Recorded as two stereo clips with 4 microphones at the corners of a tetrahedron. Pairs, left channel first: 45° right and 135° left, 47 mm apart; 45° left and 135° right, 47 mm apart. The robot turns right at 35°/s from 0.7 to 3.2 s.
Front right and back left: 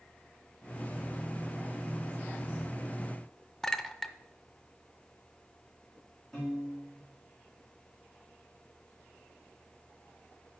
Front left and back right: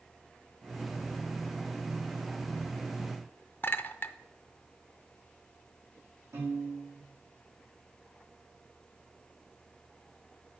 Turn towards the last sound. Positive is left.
turn(degrees=-130)